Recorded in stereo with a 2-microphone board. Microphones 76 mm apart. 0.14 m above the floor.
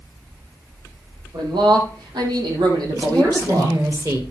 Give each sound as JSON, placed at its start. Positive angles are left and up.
{"t": 1.3, "sound": "a man speaking", "side_deg": -80, "distance_m": 5.0}
{"t": 2.9, "sound": "a woman speaking", "side_deg": -45, "distance_m": 3.0}